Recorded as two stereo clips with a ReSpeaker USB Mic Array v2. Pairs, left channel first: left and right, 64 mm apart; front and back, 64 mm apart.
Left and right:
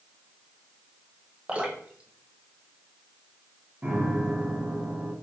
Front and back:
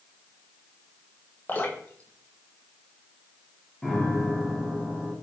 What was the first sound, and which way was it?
Dripping, 35° right.